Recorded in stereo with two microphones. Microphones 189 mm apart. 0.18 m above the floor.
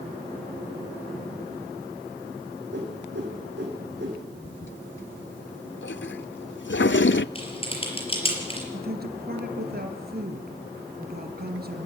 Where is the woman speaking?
55° right (ahead or behind), 3.5 m.